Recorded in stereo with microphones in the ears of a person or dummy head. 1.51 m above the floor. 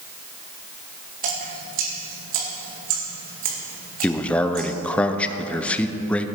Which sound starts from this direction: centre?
A man speaking, at 4.0 s.